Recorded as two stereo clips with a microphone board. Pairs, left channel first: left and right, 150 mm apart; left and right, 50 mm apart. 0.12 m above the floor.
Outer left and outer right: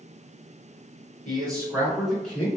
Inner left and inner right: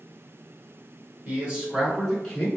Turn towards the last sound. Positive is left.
turn(degrees=15)  # may be behind; listen again after turning